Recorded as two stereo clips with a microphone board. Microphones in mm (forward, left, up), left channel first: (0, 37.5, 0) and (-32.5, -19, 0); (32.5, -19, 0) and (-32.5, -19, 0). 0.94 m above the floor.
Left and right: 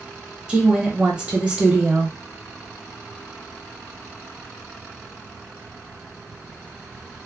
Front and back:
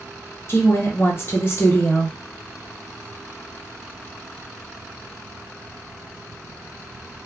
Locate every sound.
0.5 s a woman speaking: 45° right, 0.9 m